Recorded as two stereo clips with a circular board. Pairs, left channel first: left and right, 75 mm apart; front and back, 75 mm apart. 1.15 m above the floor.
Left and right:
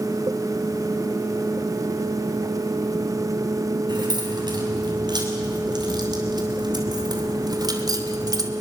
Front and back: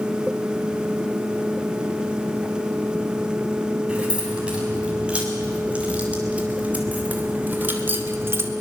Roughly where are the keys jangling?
Right.